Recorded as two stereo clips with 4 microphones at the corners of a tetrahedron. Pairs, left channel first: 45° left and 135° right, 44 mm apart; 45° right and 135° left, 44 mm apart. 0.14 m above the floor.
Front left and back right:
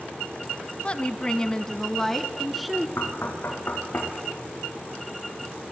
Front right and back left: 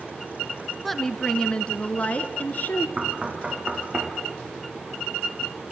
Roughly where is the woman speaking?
Ahead left.